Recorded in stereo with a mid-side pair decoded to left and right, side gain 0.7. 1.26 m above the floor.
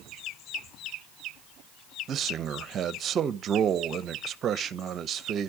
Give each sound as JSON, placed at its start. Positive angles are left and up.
{"t": 2.1, "sound": "a man speaking", "azimuth_deg": -40, "distance_m": 0.7}